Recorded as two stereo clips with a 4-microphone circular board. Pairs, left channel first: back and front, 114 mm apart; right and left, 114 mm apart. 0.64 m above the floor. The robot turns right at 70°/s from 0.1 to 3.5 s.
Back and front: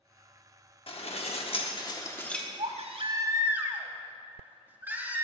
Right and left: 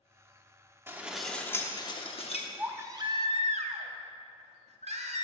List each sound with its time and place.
0.9 s dishes clattering: 155° left, 0.8 m; by 2.5 s 90° right, 0.8 m
2.6 s a baby crying: 10° left, 0.7 m; by 5.2 s 75° left, 0.7 m